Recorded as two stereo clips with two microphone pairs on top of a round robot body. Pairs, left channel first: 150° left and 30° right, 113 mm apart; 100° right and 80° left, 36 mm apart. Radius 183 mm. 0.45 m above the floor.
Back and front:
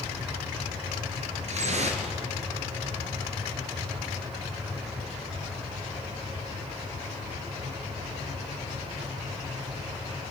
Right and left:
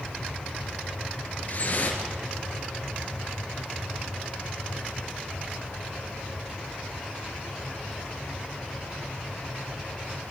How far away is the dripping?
About 3 m.